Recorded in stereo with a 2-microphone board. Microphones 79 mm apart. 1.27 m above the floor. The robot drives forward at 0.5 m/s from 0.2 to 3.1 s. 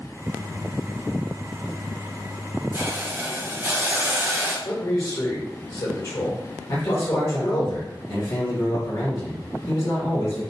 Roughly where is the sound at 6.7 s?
Left.